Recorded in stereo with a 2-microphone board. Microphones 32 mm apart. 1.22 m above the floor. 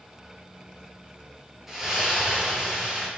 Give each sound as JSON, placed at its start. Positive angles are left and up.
{"t": 1.7, "sound": "a splash", "side_deg": -10, "distance_m": 6.0}